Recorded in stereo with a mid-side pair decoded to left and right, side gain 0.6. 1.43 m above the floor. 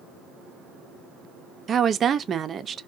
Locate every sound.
1.7 s a woman speaking: 40° right, 0.6 m